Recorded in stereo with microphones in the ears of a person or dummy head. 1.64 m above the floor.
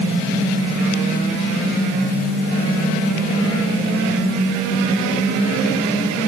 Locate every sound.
Only background noise.